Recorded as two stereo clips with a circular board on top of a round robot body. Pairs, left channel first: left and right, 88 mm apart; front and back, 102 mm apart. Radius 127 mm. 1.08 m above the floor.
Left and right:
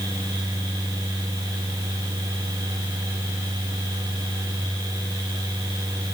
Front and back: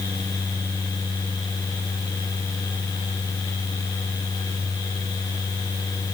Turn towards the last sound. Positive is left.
No sound to turn to.